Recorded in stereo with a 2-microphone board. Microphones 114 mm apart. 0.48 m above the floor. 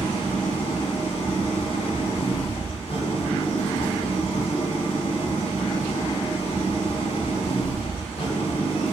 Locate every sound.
0.0 s an engine running: 60° left (ahead or behind), 1.8 m